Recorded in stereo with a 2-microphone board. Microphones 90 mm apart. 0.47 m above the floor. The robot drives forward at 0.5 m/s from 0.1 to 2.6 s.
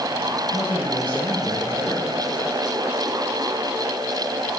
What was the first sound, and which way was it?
A man speaking, 75° right (ahead or behind).